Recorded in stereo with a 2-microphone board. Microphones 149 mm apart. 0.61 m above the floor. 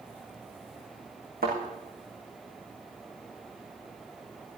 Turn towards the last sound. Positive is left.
turn(degrees=-85)